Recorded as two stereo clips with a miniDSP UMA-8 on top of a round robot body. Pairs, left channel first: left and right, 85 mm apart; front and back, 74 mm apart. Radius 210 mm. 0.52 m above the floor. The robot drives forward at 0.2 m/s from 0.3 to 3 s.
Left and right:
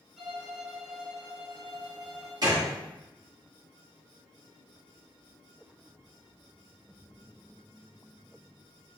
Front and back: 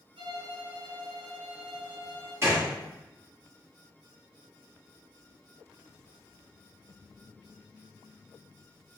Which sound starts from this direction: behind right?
A gunshot, at 2.4 s.